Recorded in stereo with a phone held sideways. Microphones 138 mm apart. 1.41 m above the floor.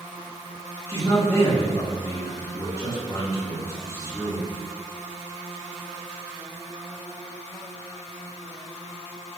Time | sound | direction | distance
0.9 | a man speaking | 20° left (ahead or behind) | 1.5 m